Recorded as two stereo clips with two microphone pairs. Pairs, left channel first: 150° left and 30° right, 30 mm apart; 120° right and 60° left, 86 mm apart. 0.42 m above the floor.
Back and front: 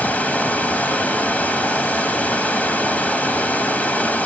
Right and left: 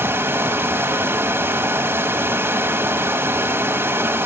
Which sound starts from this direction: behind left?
Running water, at 0.0 s.